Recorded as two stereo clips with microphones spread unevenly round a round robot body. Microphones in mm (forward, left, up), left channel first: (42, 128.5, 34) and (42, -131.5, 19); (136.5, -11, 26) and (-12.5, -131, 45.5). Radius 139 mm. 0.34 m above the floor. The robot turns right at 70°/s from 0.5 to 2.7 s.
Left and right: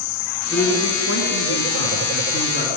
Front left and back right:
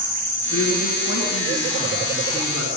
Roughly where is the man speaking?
Ahead.